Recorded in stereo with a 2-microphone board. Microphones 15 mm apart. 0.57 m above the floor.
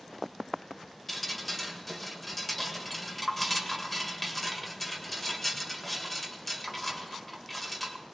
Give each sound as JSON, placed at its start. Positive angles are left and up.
{"t": 1.1, "sound": "dripping", "side_deg": 10, "distance_m": 1.6}